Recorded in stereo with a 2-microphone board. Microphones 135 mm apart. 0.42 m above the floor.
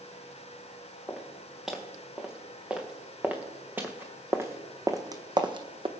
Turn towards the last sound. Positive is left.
turn(degrees=-45)  # may be behind; listen again after turning